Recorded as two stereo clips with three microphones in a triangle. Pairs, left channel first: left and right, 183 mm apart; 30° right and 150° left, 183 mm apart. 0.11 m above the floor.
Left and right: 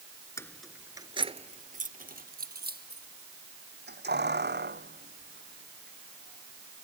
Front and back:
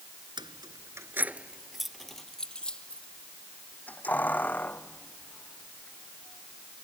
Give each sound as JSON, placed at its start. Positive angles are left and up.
{"t": 0.4, "sound": "keys jangling", "azimuth_deg": 140}